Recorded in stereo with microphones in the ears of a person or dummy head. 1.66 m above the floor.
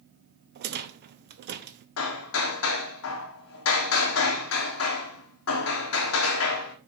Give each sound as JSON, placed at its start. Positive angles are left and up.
{"t": 0.6, "sound": "a rattle", "side_deg": -50, "distance_m": 0.6}
{"t": 2.0, "sound": "hammering", "side_deg": 80, "distance_m": 1.1}